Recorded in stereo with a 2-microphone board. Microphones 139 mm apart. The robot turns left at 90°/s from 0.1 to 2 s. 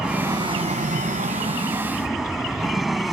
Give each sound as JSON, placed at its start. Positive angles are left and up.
{"t": 0.0, "sound": "an aircraft", "side_deg": -5}